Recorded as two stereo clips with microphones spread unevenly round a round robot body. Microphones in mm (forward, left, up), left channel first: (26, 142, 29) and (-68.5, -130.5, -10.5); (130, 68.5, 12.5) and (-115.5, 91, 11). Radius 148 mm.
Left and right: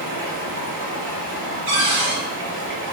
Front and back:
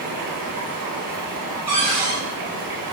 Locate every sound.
0.0 s running water: 160° right, 0.8 m
1.7 s a cupboard door: 115° right, 1.2 m